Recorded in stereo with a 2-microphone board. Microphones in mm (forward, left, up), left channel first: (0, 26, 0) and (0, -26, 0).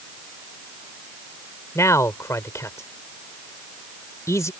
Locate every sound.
1.8 s a man speaking: 80° left